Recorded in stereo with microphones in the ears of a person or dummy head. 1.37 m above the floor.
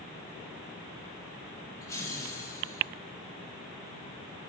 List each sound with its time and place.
1.8 s laughter: 15° left (ahead or behind), 4.5 m